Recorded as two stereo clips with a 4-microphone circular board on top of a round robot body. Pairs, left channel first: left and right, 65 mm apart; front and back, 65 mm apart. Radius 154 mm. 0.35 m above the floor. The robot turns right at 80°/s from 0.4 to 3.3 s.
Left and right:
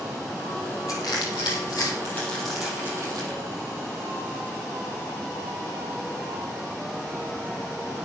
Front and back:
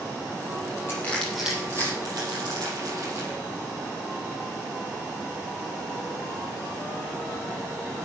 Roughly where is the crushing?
Ahead left.